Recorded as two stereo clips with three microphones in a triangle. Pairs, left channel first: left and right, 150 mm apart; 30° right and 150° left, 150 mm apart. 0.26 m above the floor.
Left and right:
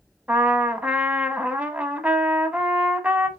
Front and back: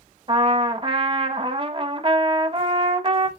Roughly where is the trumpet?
Behind.